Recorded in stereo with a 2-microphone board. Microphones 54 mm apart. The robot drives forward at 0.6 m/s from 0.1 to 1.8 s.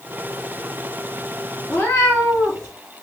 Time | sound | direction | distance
1.7 | a cat meowing | 40° left (ahead or behind) | 2.5 m